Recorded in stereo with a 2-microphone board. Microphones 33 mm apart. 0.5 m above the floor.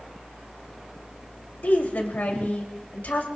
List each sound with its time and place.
1.6 s a woman speaking: 65° left (ahead or behind), 2.5 m